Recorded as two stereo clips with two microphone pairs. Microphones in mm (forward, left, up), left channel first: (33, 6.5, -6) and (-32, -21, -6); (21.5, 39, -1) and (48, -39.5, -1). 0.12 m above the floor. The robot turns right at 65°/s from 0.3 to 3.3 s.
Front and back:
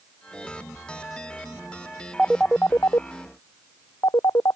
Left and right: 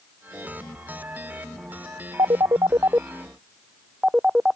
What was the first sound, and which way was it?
A phone ringing, 65° right.